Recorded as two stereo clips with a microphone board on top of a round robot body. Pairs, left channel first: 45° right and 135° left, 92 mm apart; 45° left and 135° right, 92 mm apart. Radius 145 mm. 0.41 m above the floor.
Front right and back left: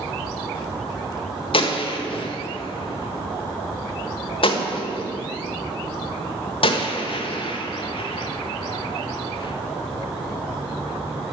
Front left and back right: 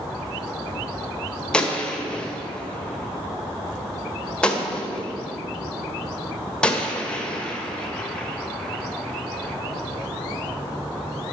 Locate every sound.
1.5 s a gunshot: 35° right, 1.4 m